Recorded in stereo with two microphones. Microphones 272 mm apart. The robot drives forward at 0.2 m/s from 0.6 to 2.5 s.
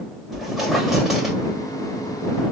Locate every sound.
0.3 s a squeak: centre (ahead or behind), 1.8 m